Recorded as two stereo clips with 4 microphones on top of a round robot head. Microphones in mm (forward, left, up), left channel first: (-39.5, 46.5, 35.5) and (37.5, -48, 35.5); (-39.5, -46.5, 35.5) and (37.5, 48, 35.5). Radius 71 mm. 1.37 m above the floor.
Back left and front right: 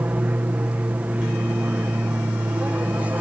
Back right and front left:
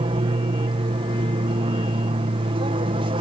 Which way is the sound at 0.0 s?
25° left.